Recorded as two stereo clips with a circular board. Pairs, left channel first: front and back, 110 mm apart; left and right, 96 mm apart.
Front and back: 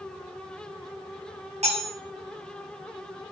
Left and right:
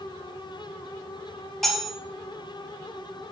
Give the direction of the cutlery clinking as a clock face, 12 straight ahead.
6 o'clock.